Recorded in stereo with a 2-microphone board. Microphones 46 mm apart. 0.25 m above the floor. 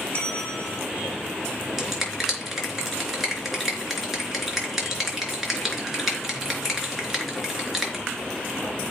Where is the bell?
30° left (ahead or behind), 2.5 m.